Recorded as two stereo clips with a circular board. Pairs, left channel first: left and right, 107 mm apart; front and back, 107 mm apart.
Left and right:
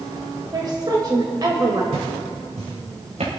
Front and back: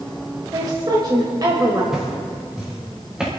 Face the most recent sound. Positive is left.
turn(degrees=-95)